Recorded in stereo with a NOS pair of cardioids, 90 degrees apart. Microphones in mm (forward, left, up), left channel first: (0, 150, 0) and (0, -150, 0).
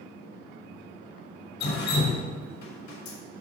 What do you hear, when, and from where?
1.6 s dripping: 70° left, 3 m